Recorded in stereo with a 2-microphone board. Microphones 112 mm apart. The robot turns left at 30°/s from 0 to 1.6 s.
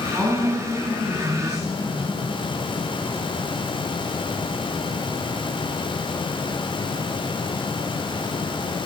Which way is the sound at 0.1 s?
160° right.